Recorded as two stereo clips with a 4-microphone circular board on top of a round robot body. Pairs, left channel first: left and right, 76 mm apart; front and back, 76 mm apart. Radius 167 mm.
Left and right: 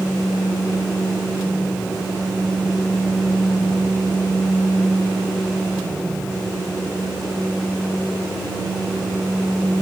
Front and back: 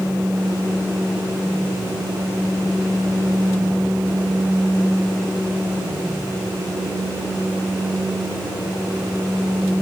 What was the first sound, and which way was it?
Only background noise.